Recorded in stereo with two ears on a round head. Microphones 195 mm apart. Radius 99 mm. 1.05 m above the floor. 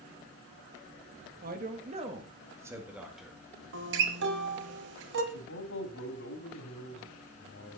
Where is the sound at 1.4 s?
45° right (ahead or behind), 1.7 m; by 3.4 s centre (ahead or behind), 2 m.